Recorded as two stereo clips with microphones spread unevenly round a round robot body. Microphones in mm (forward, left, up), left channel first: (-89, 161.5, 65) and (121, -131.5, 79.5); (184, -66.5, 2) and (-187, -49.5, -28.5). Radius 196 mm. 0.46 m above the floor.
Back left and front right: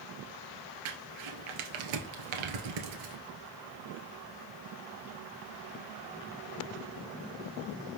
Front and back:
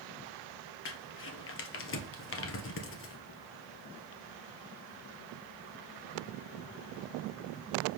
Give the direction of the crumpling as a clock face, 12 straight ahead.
2 o'clock.